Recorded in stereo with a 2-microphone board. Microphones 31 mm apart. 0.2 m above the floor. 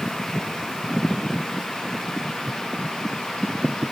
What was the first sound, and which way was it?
Only background noise.